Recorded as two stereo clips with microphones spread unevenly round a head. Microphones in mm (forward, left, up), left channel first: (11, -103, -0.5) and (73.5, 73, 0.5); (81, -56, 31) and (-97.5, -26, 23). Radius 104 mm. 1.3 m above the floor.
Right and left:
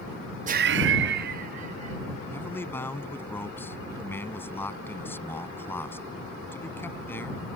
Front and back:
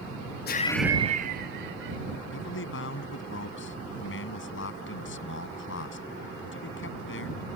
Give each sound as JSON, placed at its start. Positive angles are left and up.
{"t": 0.5, "sound": "laughter", "azimuth_deg": 25}
{"t": 2.3, "sound": "a man speaking", "azimuth_deg": -30}